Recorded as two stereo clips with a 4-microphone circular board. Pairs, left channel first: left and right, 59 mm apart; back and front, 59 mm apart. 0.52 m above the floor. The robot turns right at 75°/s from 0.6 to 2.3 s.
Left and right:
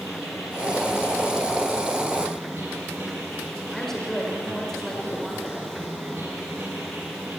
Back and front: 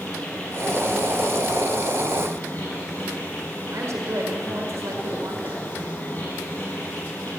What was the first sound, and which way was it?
An insect, 110° left.